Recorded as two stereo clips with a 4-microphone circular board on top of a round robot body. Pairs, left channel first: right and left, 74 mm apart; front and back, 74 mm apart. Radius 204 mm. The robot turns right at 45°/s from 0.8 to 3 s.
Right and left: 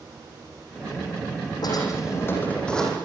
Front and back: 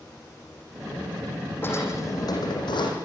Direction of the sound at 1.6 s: 60° right.